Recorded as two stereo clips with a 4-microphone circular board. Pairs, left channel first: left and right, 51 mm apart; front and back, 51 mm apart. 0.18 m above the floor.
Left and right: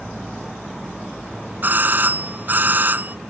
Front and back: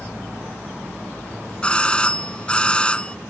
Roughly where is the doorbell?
Ahead right.